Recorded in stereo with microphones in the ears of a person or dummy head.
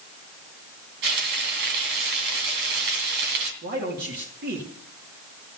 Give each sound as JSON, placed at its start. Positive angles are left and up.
{"t": 1.0, "sound": "frying", "side_deg": -55, "distance_m": 2.5}
{"t": 3.6, "sound": "a man speaking", "side_deg": -50, "distance_m": 2.5}